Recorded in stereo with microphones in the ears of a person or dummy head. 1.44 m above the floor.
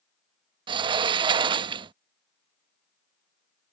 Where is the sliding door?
30° right (ahead or behind).